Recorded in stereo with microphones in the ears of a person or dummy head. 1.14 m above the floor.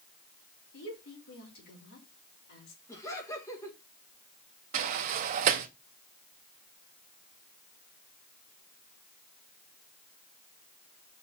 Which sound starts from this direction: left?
A woman speaking, at 0.7 s.